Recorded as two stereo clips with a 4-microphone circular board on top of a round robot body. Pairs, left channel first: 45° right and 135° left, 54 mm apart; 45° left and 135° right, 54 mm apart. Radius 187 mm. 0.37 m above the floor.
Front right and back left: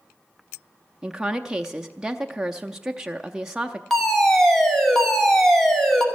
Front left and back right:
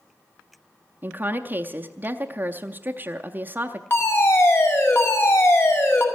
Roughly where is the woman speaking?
Behind right.